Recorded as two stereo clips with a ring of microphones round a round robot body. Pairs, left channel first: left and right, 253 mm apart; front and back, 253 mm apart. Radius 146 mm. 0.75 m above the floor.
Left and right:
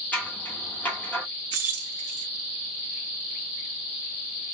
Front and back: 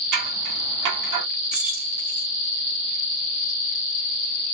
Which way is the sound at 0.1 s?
175° left.